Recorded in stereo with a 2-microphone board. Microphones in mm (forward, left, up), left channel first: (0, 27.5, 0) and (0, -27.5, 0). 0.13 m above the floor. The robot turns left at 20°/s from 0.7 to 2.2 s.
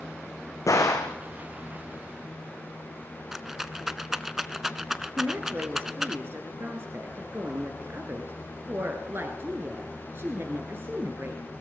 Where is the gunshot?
75° left (ahead or behind), 2.0 m; by 1.2 s 70° left (ahead or behind), 2.0 m.